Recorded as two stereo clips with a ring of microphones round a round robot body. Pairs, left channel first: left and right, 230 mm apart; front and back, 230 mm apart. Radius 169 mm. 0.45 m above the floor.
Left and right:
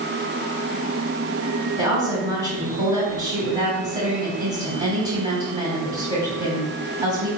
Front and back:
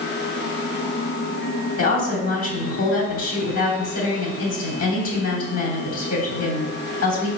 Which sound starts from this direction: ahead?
A woman speaking, at 1.8 s.